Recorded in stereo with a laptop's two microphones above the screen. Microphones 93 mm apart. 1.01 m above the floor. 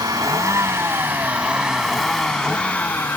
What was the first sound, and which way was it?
A vehicle, 45° right (ahead or behind).